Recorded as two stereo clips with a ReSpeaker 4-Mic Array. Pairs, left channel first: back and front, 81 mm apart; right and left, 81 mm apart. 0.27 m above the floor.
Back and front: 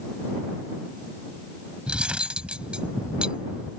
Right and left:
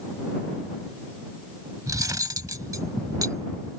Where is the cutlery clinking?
75° left.